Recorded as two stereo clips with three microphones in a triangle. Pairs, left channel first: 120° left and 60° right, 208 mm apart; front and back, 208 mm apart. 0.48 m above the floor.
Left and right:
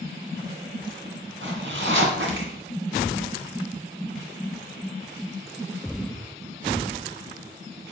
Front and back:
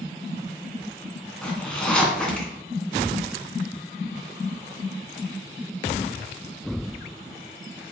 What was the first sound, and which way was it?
A zipper, 85° right.